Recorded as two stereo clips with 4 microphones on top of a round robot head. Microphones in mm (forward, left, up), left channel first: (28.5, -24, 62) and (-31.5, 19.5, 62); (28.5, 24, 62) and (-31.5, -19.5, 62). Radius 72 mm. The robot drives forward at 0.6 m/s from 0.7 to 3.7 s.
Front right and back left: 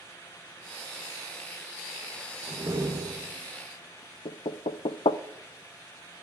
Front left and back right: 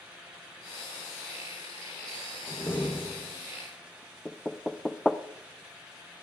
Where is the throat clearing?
No throat clearing in this recording.